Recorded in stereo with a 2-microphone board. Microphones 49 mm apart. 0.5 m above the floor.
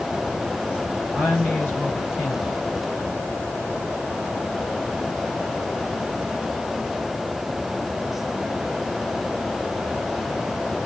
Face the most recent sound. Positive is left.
turn(degrees=45)  # may be behind; listen again after turning